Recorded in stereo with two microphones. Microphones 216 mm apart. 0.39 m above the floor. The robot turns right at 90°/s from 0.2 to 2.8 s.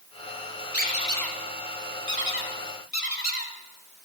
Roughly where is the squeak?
Left.